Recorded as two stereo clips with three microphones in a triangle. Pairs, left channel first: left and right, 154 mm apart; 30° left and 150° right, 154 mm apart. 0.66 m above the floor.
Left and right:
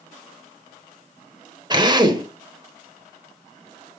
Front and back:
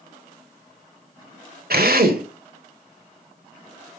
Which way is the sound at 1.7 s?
150° right.